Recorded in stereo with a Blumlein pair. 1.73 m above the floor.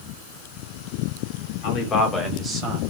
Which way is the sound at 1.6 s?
40° left.